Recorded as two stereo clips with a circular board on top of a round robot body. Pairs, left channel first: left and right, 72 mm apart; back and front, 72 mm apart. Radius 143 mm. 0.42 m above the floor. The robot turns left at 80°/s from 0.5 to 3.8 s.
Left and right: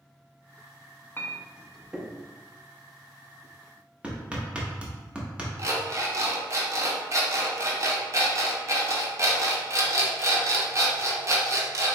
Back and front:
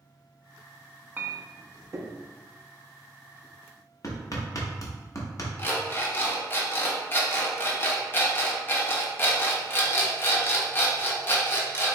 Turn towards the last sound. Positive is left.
turn(degrees=-125)